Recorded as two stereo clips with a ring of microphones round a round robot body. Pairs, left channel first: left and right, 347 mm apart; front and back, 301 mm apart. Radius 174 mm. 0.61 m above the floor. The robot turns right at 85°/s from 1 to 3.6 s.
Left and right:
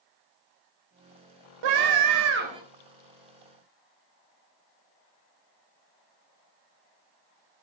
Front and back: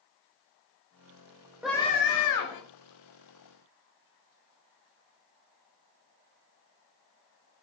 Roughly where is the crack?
No crack in this recording.